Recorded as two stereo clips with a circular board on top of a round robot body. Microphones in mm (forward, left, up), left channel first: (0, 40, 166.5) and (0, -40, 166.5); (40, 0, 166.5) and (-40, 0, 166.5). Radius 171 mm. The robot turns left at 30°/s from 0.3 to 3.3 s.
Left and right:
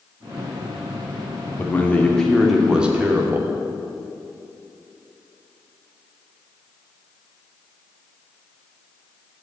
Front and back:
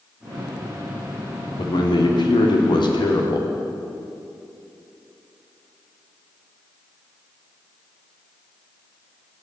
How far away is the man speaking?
About 2.5 m.